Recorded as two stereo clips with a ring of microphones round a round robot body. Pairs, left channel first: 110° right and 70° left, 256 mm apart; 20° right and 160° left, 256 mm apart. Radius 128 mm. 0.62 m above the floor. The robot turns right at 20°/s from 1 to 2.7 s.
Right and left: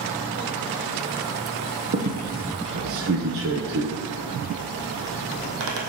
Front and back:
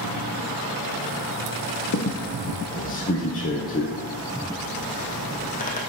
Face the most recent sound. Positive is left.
turn(degrees=35)